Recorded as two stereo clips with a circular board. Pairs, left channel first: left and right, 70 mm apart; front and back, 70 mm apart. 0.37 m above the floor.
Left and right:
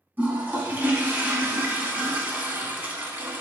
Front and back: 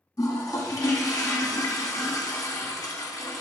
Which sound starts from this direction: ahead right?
A toilet flushing, at 0.2 s.